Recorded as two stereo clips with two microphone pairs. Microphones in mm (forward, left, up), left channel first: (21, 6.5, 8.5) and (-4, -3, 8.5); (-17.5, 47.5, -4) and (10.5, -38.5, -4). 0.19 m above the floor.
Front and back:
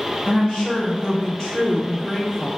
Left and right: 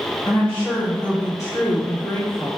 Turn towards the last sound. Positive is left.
turn(degrees=90)